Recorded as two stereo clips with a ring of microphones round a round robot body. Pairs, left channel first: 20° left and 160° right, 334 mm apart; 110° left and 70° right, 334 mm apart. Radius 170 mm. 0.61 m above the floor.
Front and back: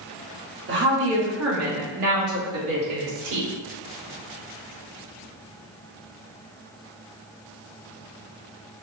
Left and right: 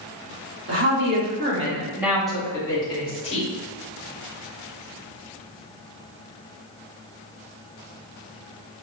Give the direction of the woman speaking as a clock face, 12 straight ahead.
4 o'clock.